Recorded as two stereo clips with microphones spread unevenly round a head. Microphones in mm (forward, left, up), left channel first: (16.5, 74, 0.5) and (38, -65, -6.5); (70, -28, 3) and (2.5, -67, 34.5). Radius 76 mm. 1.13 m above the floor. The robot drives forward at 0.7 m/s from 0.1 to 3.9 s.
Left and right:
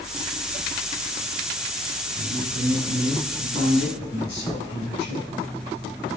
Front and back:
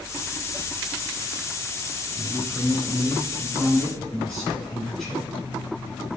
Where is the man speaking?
105° left, 6 m; by 5.3 s 115° left, 6.5 m.